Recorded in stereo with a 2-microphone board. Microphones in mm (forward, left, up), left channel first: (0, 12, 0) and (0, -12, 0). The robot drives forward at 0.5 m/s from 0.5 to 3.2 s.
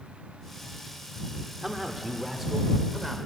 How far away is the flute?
I don't hear a flute.